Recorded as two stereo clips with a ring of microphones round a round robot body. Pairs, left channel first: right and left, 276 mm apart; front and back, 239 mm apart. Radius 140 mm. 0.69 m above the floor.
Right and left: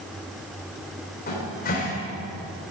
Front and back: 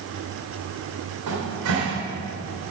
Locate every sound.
1.3 s a cupboard door: 150° right, 3 m